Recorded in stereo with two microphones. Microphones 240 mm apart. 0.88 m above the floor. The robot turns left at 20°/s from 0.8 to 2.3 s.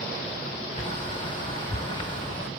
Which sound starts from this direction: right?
A bird, at 0.8 s.